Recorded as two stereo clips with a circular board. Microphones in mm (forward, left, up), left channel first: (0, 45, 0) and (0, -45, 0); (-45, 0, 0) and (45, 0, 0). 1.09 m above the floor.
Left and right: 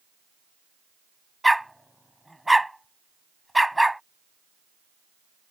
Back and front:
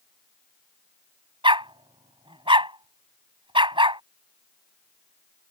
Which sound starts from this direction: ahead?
A dog barking, at 1.4 s.